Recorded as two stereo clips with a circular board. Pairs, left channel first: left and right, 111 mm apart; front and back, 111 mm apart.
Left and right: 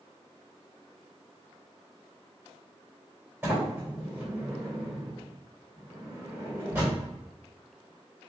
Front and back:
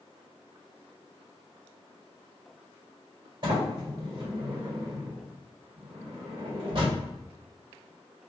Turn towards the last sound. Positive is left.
turn(degrees=-155)